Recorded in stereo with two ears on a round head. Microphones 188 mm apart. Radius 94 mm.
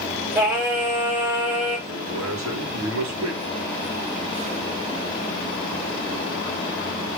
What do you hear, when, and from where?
0.3 s singing: 5° right (ahead or behind), 5.5 m
1.9 s a man speaking: 70° right (ahead or behind), 3 m